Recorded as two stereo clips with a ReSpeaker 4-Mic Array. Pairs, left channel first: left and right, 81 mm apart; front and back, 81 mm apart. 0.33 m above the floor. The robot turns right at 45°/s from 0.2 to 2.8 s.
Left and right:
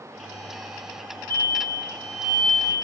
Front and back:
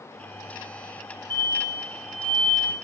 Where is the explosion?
60° right, 6 m; by 2.7 s straight ahead, 6 m.